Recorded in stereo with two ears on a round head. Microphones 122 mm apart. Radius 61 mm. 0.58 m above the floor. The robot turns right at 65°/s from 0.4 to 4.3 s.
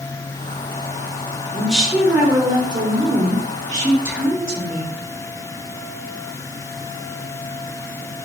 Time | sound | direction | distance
1.5 | a woman speaking | 170° left | 1.2 m